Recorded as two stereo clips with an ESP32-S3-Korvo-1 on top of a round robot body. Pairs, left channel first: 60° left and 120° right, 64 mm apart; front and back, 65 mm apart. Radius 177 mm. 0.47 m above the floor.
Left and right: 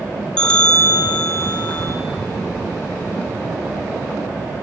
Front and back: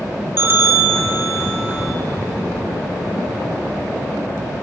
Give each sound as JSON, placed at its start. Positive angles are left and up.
{"t": 0.4, "sound": "a bell", "azimuth_deg": 135, "distance_m": 1.4}